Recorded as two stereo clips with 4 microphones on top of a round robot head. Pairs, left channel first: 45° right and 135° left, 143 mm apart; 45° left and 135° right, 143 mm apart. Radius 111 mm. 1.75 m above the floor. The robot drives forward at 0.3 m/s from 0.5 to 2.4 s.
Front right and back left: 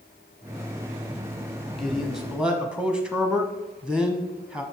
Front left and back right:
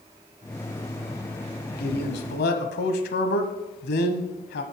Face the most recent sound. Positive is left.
turn(degrees=50)